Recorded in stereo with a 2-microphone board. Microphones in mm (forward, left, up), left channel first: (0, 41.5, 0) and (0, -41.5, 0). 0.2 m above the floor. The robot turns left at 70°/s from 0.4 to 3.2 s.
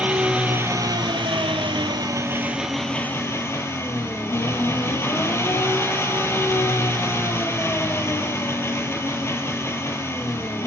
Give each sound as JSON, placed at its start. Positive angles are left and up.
{"t": 0.0, "sound": "an engine running", "azimuth_deg": -15, "distance_m": 1.1}